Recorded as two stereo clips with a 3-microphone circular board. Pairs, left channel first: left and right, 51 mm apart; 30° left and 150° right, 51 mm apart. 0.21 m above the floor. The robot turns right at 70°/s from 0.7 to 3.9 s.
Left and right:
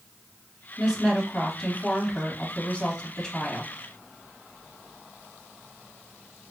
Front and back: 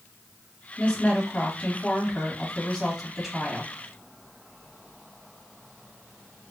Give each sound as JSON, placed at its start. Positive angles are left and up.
{"t": 0.8, "sound": "a woman speaking", "azimuth_deg": -35, "distance_m": 1.6}